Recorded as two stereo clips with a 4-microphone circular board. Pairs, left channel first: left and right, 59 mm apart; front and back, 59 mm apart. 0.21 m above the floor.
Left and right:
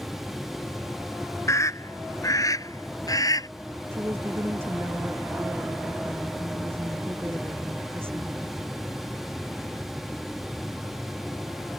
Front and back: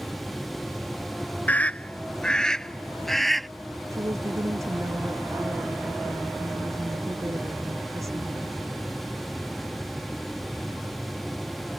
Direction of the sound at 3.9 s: 140° right.